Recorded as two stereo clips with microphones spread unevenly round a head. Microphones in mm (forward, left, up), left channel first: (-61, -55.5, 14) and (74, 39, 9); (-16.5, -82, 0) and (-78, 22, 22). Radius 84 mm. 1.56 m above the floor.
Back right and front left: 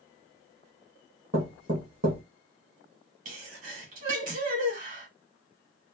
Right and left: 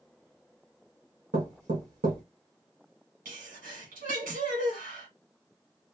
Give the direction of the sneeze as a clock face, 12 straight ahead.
9 o'clock.